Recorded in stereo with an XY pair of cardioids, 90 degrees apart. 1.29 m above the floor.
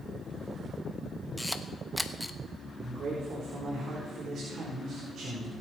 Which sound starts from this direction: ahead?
A camera shutter, at 1.4 s.